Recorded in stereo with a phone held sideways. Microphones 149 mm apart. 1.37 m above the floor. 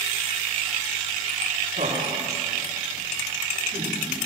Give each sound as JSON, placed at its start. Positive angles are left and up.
{"t": 1.7, "sound": "laughter", "side_deg": -70, "distance_m": 3.5}